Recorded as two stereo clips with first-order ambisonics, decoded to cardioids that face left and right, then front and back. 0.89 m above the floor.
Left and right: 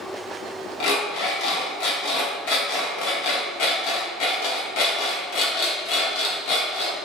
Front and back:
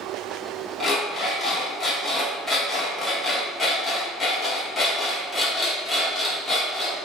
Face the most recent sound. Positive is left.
turn(degrees=80)